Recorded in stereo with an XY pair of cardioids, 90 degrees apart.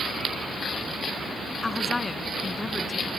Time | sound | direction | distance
1.6 | a woman speaking | 25° left | ?